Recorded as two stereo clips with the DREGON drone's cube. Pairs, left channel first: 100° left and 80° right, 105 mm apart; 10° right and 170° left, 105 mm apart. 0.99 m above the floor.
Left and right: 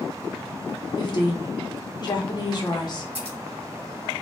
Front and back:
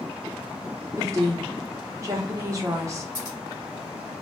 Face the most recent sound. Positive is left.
turn(degrees=-70)